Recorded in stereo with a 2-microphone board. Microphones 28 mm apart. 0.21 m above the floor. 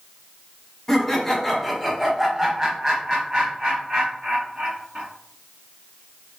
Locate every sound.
0.9 s laughter: 15° left (ahead or behind), 1.2 m; by 5.0 s 40° right (ahead or behind), 1.9 m